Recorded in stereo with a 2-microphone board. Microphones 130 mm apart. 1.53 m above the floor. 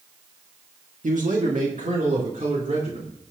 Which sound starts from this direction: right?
A man speaking, at 1.0 s.